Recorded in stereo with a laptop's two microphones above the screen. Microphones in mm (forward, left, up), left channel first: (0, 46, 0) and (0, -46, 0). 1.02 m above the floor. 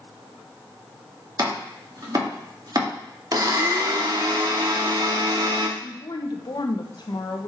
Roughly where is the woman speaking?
Left.